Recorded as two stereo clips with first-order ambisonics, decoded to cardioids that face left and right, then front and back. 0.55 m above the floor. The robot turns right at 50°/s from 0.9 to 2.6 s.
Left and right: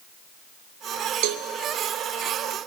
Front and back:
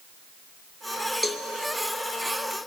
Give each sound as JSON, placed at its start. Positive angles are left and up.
{"t": 1.2, "sound": "a cowbell", "azimuth_deg": -90, "distance_m": 0.6}